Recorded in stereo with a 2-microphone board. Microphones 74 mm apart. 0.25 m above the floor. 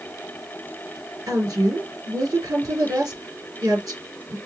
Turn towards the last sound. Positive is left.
turn(degrees=-60)  # may be behind; listen again after turning